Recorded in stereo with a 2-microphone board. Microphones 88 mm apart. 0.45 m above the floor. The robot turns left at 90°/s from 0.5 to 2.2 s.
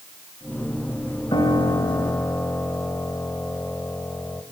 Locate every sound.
1.3 s a piano: 100° left, 1.7 m; by 4.4 s 20° left, 1.7 m